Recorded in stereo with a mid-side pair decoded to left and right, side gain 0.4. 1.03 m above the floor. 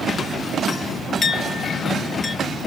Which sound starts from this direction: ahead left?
A clink, at 1.2 s.